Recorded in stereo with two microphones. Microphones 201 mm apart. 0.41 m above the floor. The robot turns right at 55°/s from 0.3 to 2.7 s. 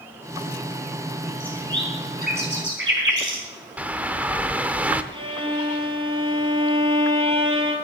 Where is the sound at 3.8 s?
10° right (ahead or behind), 0.7 m.